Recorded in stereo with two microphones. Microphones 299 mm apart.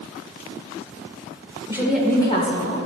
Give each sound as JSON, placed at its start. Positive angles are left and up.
{"t": 1.7, "sound": "a woman speaking", "side_deg": -10, "distance_m": 1.8}